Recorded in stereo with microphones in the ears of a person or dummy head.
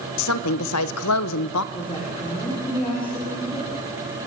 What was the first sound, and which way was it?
A woman speaking, 80° left.